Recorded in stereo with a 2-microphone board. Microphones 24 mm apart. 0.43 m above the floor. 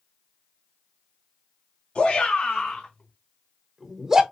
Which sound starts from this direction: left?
A shout, at 1.9 s.